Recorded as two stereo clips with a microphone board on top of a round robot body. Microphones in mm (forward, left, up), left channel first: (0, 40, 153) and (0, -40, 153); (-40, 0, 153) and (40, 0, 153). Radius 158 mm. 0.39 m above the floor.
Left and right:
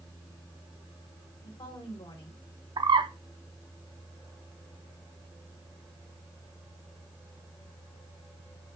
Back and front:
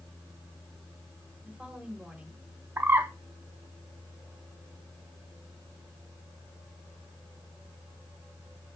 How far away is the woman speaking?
About 3 m.